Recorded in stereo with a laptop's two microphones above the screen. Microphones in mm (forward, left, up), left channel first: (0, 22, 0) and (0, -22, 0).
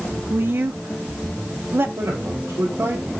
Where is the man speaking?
80° right, 4.5 m.